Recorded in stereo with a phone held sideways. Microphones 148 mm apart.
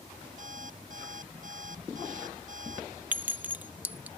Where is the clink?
10° right (ahead or behind).